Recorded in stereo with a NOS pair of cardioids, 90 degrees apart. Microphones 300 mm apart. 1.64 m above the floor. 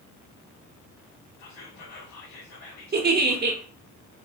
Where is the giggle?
35° right, 0.9 m.